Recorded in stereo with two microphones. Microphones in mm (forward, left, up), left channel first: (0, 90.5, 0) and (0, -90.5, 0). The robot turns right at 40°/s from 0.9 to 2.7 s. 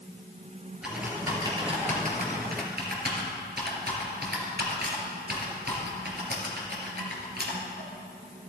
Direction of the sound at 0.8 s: 5° right (ahead or behind).